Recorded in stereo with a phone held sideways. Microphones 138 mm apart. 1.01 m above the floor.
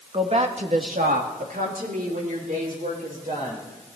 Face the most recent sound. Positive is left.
turn(degrees=-65)  # may be behind; listen again after turning